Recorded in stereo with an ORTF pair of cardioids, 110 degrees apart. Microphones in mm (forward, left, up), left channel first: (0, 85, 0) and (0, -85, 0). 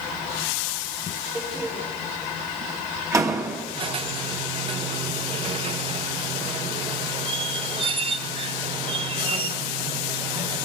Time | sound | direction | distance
1.4 | a door slam | 20° right | 2 m
3.8 | a squeak | 35° right | 0.8 m